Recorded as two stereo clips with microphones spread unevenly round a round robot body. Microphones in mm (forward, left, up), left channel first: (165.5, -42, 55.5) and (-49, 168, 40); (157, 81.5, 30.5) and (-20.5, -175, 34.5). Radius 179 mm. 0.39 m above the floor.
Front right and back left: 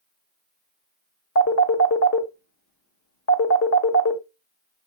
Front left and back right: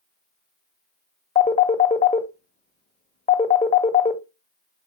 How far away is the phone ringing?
About 1.3 m.